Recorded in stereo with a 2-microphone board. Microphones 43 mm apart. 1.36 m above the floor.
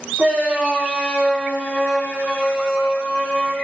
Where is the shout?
40° right (ahead or behind), 3 m.